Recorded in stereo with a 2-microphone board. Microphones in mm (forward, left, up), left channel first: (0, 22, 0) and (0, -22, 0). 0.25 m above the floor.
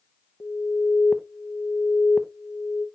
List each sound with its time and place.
0.4 s an alarm: 50° left (ahead or behind), 0.9 m